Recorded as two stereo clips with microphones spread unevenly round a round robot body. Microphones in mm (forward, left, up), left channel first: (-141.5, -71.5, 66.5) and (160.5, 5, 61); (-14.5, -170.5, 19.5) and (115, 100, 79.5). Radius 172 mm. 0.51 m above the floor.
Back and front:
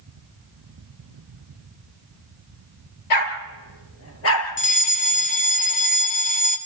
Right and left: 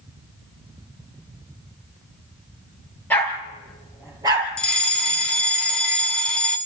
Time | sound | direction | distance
3.1 | a dog barking | 160° left | 3 m
4.6 | a fire alarm | 170° right | 1.7 m